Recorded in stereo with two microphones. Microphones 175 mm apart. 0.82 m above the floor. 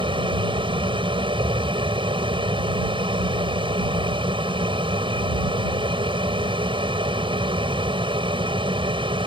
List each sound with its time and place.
0.0 s an aircraft: 30° right (ahead or behind)